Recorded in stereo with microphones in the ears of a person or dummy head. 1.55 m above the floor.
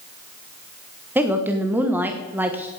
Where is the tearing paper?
No tearing paper in this recording.